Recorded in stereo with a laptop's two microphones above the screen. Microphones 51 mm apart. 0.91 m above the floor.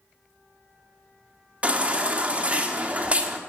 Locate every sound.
1.6 s a baby crying: 25° right (ahead or behind), 1.4 m